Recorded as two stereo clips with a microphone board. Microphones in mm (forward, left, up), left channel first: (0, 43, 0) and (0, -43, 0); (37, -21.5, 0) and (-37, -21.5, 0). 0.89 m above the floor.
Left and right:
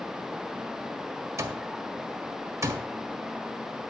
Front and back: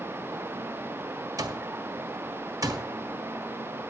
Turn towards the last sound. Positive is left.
turn(degrees=-140)